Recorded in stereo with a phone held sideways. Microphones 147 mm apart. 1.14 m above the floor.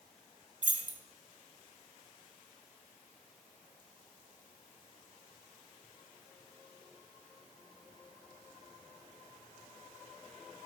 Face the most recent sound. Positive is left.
turn(degrees=-60)  # may be behind; listen again after turning